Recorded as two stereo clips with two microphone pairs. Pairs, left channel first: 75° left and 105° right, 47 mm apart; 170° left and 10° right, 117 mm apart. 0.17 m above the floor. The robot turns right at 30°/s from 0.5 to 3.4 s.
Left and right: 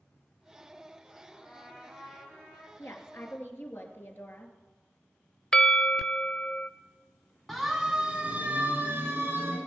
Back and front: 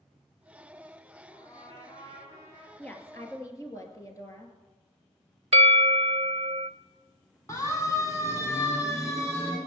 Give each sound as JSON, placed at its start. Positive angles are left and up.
{"t": 1.3, "sound": "a trumpet", "azimuth_deg": 140, "distance_m": 7.5}
{"t": 2.8, "sound": "a woman speaking", "azimuth_deg": 90, "distance_m": 2.5}
{"t": 5.5, "sound": "a bell", "azimuth_deg": 5, "distance_m": 0.6}
{"t": 7.5, "sound": "a siren", "azimuth_deg": 160, "distance_m": 2.0}